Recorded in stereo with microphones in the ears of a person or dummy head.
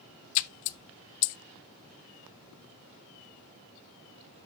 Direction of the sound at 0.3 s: 60° left (ahead or behind).